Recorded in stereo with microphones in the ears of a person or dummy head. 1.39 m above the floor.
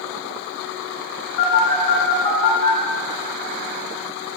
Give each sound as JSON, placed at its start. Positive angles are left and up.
{"t": 1.4, "sound": "a phone buzzing", "side_deg": 60, "distance_m": 1.8}